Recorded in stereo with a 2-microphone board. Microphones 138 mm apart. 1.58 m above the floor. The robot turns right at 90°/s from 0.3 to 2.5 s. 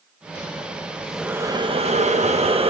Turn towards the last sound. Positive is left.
turn(degrees=-60)